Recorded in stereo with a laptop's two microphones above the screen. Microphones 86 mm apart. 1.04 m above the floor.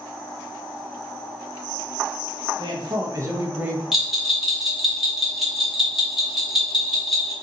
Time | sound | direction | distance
2.6 | a man speaking | 60° right (ahead or behind) | 0.6 m
3.9 | a bell | centre (ahead or behind) | 0.9 m